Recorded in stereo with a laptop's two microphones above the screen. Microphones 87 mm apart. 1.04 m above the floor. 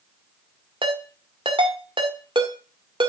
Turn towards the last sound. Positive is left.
turn(degrees=-70)  # may be behind; listen again after turning